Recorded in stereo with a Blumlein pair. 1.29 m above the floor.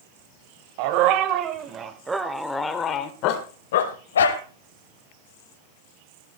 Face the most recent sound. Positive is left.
turn(degrees=70)